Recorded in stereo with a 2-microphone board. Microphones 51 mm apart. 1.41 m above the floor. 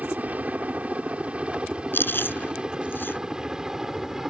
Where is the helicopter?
30° right (ahead or behind); by 4.3 s 5° right (ahead or behind).